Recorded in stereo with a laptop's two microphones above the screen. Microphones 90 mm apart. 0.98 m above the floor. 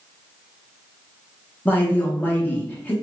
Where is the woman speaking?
20° left (ahead or behind), 0.8 m.